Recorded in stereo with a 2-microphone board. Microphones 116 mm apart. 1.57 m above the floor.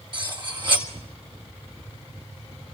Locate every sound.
0.1 s cutlery clinking: 40° right (ahead or behind), 1.7 m